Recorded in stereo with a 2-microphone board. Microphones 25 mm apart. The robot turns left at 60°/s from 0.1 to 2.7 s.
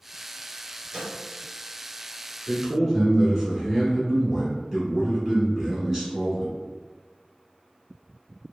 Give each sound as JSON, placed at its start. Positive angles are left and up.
{"t": 0.9, "sound": "a snare drum", "side_deg": -40, "distance_m": 1.8}
{"t": 2.5, "sound": "a man speaking", "side_deg": -15, "distance_m": 1.1}